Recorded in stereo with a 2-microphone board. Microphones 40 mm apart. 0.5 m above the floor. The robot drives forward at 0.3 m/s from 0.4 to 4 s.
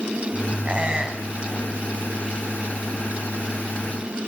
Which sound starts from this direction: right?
A squeak, at 0.7 s.